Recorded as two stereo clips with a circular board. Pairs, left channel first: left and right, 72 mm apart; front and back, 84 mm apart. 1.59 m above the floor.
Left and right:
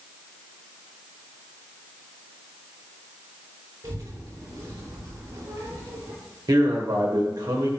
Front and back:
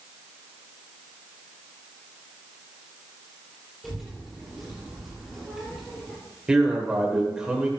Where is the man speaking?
100° right, 1.4 m.